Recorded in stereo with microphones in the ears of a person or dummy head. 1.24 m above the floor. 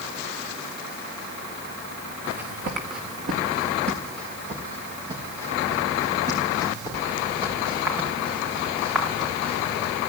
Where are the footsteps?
60° right (ahead or behind), 4.5 m; by 10.0 s 5° right (ahead or behind), 13 m.